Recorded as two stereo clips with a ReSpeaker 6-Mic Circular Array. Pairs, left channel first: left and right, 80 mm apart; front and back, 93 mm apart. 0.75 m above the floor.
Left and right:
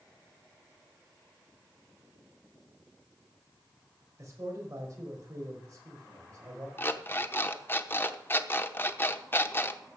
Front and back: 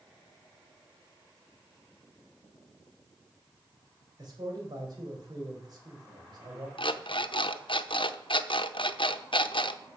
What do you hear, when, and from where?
4.2 s a man speaking: 140° right, 4.5 m
6.8 s an alarm clock: 25° left, 0.8 m